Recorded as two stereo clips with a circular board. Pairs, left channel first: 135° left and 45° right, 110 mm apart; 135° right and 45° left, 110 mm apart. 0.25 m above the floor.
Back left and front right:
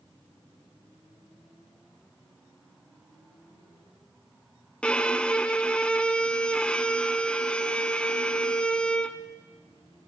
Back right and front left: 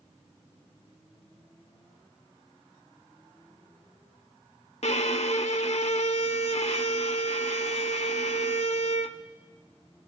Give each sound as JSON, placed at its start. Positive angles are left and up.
{"t": 4.8, "sound": "a violin", "azimuth_deg": -145, "distance_m": 0.6}